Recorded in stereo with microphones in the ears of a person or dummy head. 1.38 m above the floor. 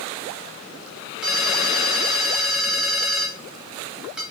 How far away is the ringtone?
About 1.0 m.